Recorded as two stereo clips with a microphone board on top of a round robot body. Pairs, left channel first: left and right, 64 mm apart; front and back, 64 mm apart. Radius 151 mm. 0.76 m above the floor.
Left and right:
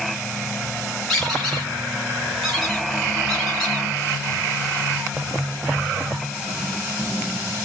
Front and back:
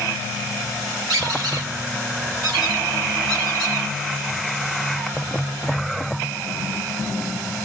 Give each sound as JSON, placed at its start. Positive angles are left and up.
{"t": 1.1, "sound": "a squeak", "azimuth_deg": 175, "distance_m": 1.1}